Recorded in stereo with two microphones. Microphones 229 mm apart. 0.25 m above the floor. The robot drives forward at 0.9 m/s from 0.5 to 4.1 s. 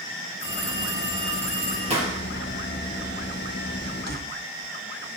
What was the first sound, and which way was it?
A phone ringing, 50° right (ahead or behind).